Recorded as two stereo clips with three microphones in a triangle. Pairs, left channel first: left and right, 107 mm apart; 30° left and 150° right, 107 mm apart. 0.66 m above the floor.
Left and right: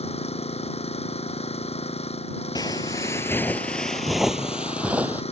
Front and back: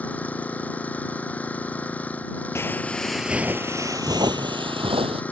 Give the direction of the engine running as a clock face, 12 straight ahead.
8 o'clock.